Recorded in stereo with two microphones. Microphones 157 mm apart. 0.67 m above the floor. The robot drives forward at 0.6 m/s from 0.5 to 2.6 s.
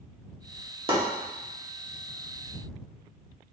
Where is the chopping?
35° right (ahead or behind), 1.3 m.